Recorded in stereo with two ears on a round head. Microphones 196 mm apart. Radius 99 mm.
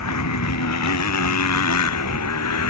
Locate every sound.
0.0 s a motorcycle: 80° left; by 2.7 s 90° left